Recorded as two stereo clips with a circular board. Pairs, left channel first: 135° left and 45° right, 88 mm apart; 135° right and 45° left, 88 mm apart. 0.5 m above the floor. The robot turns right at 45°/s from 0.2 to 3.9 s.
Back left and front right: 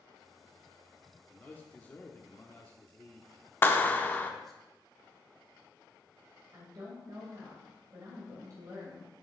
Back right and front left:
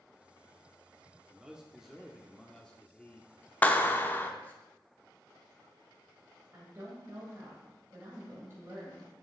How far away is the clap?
About 0.5 m.